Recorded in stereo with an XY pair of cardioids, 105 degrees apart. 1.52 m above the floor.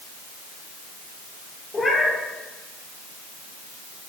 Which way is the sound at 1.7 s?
20° left.